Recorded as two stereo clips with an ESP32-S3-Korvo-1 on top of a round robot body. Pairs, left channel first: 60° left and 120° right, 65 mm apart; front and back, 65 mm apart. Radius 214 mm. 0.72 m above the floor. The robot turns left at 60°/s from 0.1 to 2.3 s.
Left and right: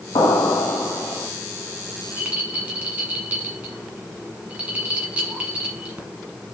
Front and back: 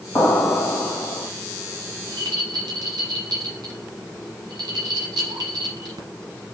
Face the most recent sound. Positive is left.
turn(degrees=170)